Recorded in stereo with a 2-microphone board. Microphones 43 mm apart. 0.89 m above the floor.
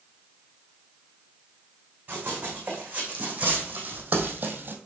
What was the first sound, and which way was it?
Running footsteps, 30° right (ahead or behind).